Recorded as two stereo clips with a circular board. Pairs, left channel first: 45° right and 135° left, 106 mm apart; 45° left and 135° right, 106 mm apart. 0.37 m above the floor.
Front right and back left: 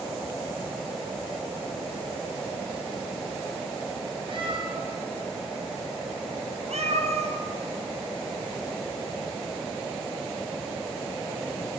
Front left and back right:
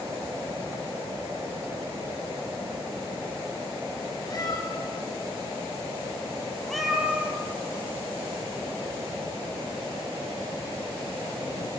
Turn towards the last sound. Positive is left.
turn(degrees=150)